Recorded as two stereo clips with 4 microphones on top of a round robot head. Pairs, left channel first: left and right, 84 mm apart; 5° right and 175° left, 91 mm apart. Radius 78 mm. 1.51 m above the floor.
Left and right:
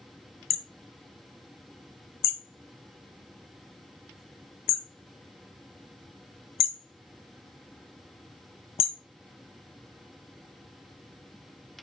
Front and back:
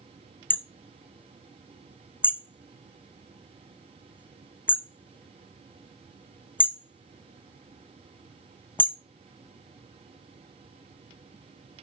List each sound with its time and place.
0.5 s hammering: 65° left, 0.5 m